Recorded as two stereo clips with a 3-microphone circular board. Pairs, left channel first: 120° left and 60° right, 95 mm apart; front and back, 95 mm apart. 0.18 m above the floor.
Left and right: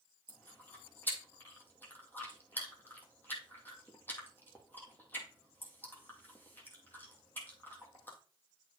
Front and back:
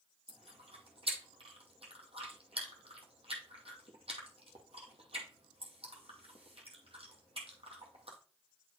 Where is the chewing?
170° right, 2 m.